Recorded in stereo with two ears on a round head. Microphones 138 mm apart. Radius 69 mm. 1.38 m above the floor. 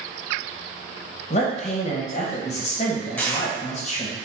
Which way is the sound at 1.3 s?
45° left (ahead or behind).